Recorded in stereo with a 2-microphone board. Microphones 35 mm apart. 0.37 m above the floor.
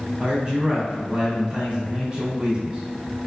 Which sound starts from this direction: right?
A man speaking, at 0.2 s.